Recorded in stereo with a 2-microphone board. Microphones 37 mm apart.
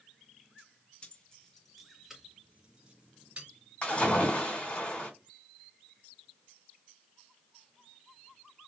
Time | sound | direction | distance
1.0 | keys jangling | 30° left (ahead or behind) | 0.6 m
3.8 | a splash | 35° left (ahead or behind) | 2.0 m